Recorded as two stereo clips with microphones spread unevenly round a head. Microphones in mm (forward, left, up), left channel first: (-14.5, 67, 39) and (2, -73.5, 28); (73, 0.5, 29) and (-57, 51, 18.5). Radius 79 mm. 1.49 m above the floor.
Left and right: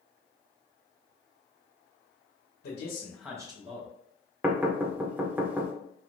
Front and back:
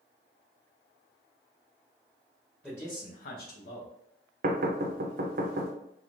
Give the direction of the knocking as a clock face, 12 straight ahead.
5 o'clock.